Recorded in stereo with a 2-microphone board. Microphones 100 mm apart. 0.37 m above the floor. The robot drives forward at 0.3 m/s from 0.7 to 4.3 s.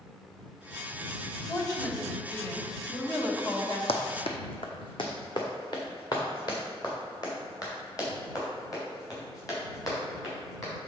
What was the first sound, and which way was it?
A woman speaking, 40° left (ahead or behind).